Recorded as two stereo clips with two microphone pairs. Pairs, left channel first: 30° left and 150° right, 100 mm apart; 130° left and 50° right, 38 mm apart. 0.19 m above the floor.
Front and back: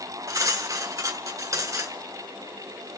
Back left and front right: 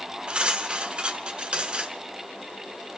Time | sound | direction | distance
0.3 | cutlery clinking | 105° right | 1.6 m